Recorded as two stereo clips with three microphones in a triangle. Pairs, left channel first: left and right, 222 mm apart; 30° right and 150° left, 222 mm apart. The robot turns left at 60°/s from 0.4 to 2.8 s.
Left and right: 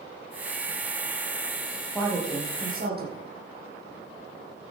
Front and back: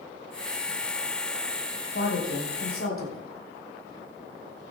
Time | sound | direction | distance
1.9 | a woman speaking | 5° left | 5 m